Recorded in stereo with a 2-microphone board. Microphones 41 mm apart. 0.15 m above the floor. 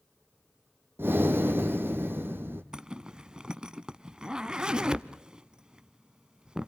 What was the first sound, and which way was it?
Breathing, 70° right (ahead or behind).